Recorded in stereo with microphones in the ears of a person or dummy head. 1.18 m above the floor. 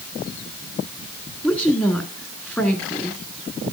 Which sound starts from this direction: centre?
A woman speaking, at 1.4 s.